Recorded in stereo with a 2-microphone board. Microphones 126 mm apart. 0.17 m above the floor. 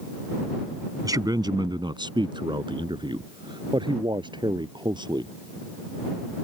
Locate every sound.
1.0 s a man speaking: 30° right (ahead or behind); by 5.3 s 35° right (ahead or behind)